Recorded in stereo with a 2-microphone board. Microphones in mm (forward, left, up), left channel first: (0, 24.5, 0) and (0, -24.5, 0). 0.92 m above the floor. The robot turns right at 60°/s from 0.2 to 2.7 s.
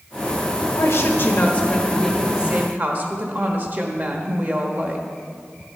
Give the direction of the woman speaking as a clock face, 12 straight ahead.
9 o'clock.